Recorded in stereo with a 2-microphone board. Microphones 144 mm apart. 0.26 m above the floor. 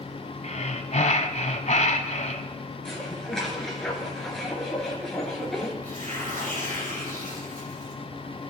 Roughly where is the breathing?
Left.